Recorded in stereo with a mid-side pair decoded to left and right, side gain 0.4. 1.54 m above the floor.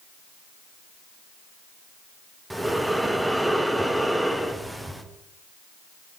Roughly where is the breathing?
Ahead.